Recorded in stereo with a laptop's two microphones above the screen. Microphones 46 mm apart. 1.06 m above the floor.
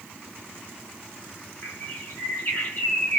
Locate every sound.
1.6 s a bird: 45° left (ahead or behind), 1.5 m